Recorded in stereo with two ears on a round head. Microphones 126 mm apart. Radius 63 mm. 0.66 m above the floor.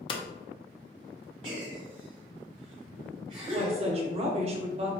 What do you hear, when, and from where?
0.1 s hammering: 35° left (ahead or behind), 0.5 m
1.4 s a gasp: 40° right (ahead or behind), 1.5 m
3.5 s a woman speaking: 45° right (ahead or behind), 0.8 m